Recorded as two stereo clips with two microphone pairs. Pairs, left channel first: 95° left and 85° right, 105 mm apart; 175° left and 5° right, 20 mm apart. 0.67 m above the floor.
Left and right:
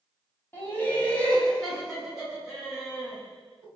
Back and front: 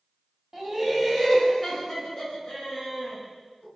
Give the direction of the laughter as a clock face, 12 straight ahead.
10 o'clock.